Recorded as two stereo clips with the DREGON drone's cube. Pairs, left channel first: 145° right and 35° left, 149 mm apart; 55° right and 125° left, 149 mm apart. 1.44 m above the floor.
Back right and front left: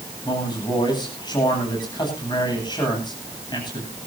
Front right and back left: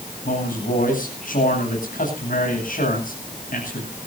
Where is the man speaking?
85° right, 10 m.